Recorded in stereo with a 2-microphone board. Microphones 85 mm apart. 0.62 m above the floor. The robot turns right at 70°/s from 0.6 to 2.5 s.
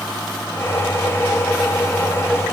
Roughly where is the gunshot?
No gunshot in this recording.